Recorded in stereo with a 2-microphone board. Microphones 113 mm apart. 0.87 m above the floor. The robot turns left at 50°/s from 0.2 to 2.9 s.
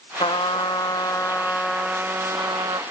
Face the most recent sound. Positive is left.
turn(degrees=-55)